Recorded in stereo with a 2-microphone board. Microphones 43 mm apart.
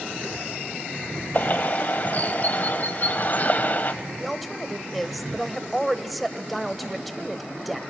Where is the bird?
45° left (ahead or behind), 1.2 m.